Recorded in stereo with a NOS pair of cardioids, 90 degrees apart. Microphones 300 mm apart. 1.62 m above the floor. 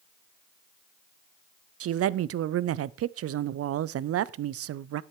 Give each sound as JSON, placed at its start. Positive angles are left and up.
{"t": 1.8, "sound": "a woman speaking", "azimuth_deg": -50, "distance_m": 0.5}